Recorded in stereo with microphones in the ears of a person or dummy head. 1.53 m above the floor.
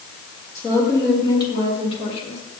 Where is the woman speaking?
15° left (ahead or behind), 3 m; by 2.4 s 40° left (ahead or behind), 3 m.